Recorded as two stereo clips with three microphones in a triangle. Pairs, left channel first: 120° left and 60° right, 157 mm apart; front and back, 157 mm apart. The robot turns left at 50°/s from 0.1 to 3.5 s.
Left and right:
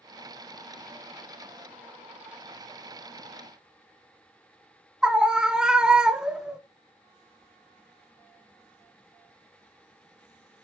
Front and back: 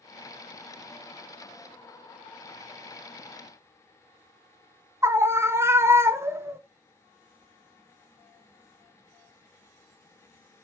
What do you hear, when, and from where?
5.0 s a scream: 135° right, 0.8 m